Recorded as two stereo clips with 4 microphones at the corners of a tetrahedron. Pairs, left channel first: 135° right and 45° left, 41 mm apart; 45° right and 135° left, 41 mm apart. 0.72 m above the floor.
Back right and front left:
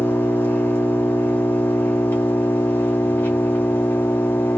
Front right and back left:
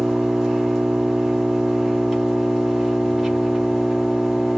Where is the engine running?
140° right, 1.4 m.